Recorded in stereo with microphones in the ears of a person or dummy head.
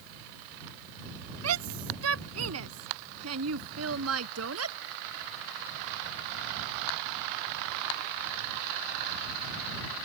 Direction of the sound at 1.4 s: 80° right.